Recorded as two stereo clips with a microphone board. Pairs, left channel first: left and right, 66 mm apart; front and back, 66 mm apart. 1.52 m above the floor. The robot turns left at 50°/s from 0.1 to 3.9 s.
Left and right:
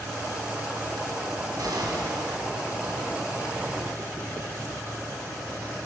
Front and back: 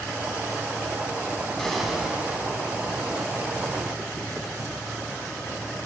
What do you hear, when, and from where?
1.6 s an explosion: 80° right, 4 m; by 2.5 s 125° right, 4 m